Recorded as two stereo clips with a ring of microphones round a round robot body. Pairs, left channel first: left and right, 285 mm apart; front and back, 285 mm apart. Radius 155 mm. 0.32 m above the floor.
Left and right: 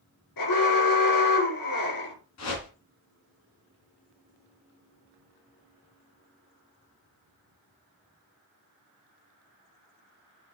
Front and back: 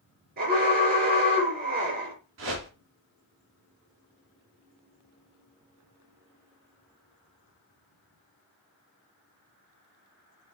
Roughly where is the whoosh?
Behind left.